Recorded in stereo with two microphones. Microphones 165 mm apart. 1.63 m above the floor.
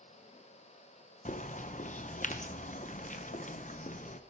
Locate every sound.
1.2 s a bird: 50° left (ahead or behind), 0.7 m